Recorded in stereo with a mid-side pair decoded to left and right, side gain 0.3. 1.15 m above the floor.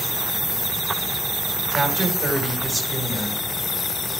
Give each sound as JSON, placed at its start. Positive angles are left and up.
{"t": 1.7, "sound": "a woman speaking", "azimuth_deg": -35, "distance_m": 5.0}